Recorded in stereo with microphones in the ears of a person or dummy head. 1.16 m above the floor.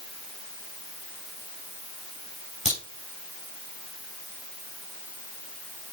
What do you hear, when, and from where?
2.6 s a crack: 35° right (ahead or behind), 7 m